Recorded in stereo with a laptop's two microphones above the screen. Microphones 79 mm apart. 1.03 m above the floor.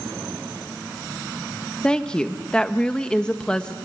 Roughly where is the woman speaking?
Centre.